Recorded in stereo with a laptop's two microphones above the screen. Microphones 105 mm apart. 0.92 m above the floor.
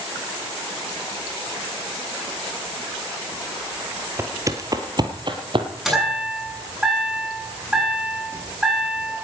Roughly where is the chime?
Centre.